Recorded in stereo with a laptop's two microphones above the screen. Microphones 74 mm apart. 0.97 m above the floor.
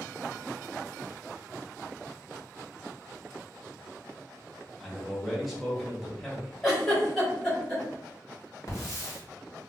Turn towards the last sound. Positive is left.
turn(degrees=40)  # may be behind; listen again after turning